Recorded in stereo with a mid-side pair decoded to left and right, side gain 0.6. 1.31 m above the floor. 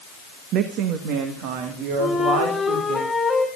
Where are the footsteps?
I don't hear footsteps.